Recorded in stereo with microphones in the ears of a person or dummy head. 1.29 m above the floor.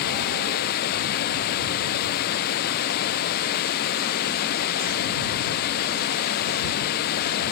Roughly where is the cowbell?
No cowbell in this recording.